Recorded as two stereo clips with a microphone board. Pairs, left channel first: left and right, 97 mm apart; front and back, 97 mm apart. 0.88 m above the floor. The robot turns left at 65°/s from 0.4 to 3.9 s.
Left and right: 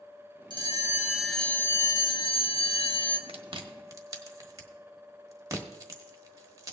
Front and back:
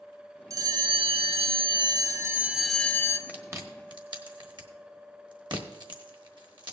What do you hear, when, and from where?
0.5 s a bell: 125° right, 0.8 m; by 3.2 s 60° left, 0.8 m
3.3 s chewing: 105° right, 1.2 m; by 6.7 s 145° right, 1.2 m